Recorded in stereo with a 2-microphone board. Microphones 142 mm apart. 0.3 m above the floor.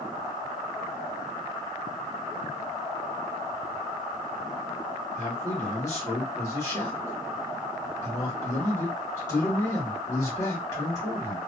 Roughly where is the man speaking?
Left.